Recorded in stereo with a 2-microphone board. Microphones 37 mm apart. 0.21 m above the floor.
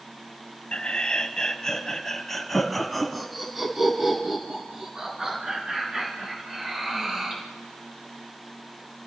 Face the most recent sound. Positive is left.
turn(degrees=-20)  # may be behind; listen again after turning